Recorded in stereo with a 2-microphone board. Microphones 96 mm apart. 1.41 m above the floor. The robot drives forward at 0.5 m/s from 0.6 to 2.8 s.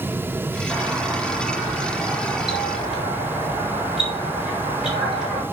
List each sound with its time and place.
0.7 s a doorbell: 10° right (ahead or behind), 4.5 m; by 5.4 s 5° right (ahead or behind), 5.5 m